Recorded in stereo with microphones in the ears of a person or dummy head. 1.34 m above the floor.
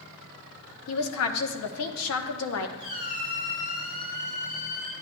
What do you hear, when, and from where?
0.9 s a woman speaking: 85° left, 1.0 m
2.8 s a squeak: 45° left (ahead or behind), 3.5 m